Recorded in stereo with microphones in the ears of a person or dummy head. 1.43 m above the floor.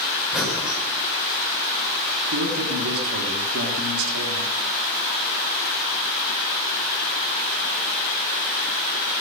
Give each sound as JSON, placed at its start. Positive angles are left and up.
{"t": 0.3, "sound": "breathing", "side_deg": 0, "distance_m": 5.5}
{"t": 2.3, "sound": "a man speaking", "side_deg": -85, "distance_m": 3.0}